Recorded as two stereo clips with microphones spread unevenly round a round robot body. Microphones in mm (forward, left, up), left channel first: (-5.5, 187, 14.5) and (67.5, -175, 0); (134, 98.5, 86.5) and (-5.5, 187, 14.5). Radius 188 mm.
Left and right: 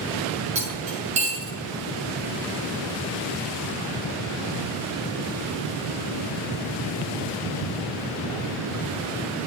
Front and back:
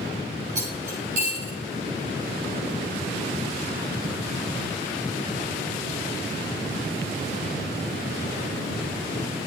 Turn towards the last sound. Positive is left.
turn(degrees=-155)